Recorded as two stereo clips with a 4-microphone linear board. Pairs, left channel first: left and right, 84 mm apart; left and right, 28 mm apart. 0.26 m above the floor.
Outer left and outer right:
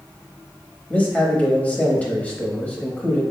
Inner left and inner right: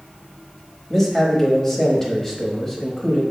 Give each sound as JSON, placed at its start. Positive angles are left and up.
{"t": 0.9, "sound": "a man speaking", "side_deg": 20, "distance_m": 1.0}